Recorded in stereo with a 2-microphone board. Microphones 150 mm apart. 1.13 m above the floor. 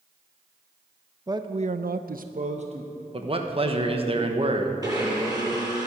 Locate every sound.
1.3 s a man speaking: 25° right (ahead or behind), 0.8 m; by 3.0 s 40° right (ahead or behind), 1.5 m
3.1 s a man speaking: 40° right (ahead or behind), 1.2 m
4.8 s a blender: 25° right (ahead or behind), 5 m